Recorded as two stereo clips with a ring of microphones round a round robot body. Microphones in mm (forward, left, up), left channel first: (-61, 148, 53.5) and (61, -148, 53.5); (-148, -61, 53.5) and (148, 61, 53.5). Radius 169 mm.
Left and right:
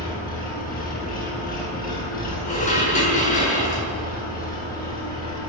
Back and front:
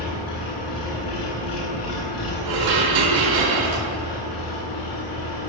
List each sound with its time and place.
0.0 s an engine running: 175° left, 9 m
2.5 s dishes clattering: 45° left, 7 m